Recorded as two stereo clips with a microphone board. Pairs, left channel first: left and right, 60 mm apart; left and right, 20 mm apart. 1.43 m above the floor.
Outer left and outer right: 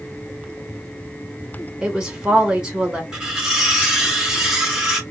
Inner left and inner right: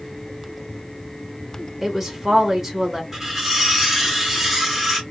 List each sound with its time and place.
1.8 s a woman speaking: 15° right (ahead or behind), 1.7 m
3.1 s cutlery clinking: 10° right (ahead or behind), 1.8 m